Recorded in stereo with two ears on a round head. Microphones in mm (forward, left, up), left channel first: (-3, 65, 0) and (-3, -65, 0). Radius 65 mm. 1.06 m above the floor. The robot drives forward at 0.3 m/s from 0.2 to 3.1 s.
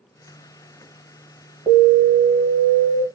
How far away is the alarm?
About 1.7 m.